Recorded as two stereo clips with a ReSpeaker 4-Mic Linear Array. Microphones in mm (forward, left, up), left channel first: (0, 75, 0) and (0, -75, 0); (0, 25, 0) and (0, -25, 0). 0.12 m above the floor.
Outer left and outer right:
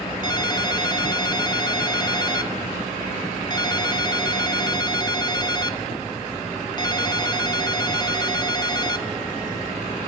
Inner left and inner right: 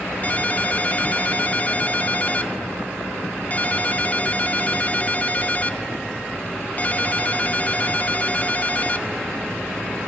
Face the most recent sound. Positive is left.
turn(degrees=30)  # may be behind; listen again after turning